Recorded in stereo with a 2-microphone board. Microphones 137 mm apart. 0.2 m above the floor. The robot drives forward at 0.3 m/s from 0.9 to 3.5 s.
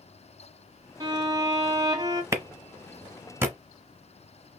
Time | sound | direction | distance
1.0 | a violin | 25° right (ahead or behind) | 1.2 m
2.3 | a clap | 20° right (ahead or behind) | 1.0 m